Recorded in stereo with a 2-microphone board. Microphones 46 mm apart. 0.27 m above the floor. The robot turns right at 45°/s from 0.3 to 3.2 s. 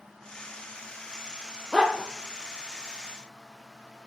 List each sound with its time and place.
1.7 s a dog barking: 10° left (ahead or behind), 2 m; by 2.1 s 30° left (ahead or behind), 2 m